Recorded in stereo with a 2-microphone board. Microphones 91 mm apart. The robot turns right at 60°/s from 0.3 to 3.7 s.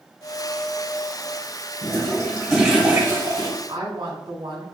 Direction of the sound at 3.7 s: 70° right (ahead or behind).